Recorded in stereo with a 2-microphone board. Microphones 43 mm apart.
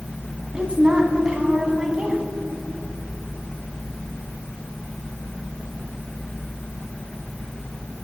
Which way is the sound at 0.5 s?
20° right (ahead or behind).